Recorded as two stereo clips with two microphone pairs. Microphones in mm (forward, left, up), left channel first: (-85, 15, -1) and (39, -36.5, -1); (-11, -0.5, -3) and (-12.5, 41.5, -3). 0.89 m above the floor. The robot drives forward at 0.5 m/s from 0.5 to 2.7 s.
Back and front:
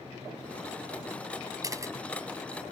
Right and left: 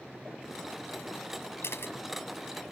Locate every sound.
1.6 s a camera shutter: 85° right; by 1.9 s 90° right